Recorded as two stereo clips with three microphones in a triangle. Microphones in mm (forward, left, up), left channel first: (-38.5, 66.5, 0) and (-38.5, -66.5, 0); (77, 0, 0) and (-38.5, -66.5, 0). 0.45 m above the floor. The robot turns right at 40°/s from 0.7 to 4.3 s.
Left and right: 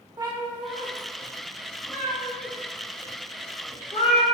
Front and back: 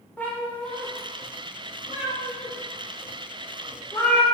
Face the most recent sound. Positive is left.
turn(degrees=100)